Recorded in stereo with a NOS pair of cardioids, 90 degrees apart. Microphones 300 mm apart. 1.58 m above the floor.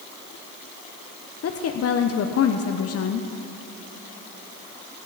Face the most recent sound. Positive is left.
turn(degrees=55)